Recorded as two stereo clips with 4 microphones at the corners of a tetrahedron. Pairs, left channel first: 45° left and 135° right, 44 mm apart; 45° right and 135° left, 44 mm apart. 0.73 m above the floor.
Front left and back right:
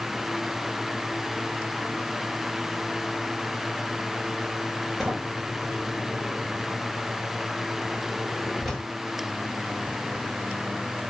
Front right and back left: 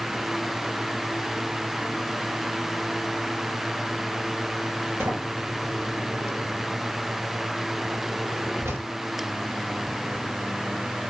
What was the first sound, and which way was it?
A sliding door, 135° left.